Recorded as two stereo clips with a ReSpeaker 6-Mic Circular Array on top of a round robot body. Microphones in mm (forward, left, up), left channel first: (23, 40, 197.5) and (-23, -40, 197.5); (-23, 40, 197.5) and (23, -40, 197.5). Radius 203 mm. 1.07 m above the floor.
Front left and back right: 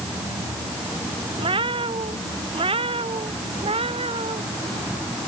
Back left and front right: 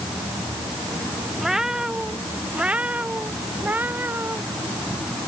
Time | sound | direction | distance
1.4 | a cat meowing | 145° right | ?